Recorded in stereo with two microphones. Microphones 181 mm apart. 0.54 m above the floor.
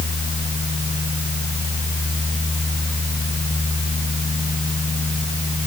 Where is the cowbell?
No cowbell in this recording.